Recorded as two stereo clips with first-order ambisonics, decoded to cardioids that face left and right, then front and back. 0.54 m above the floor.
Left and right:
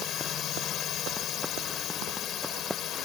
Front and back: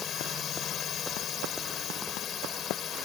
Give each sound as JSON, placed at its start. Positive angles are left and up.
{"t": 0.0, "sound": "a drone", "azimuth_deg": 50}